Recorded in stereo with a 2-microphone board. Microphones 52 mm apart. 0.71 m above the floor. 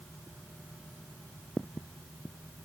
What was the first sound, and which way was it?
Only background noise.